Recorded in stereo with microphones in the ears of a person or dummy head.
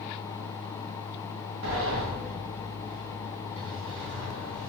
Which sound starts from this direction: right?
A sliding door, at 1.6 s.